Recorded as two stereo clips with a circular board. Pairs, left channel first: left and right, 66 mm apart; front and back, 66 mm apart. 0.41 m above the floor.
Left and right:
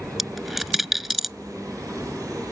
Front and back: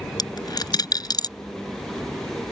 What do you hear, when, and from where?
0.2 s a dropped coin: straight ahead